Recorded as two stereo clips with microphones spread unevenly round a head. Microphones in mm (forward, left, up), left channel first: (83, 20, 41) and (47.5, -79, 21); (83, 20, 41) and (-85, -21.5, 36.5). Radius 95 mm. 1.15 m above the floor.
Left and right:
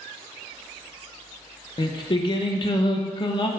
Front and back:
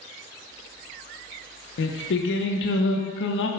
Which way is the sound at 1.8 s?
25° left.